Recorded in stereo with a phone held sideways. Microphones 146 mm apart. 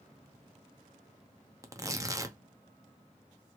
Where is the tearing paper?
20° right (ahead or behind), 0.8 m.